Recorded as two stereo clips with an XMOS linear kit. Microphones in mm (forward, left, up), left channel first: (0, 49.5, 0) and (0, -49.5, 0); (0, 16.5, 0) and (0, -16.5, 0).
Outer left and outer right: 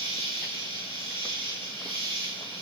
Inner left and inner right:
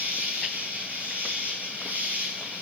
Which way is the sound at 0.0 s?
60° right (ahead or behind).